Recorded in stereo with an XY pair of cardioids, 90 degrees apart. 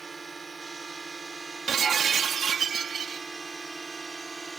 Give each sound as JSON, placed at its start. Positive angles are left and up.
{"t": 0.0, "sound": "a drone", "azimuth_deg": -35}
{"t": 1.7, "sound": "breaking glass", "azimuth_deg": -65}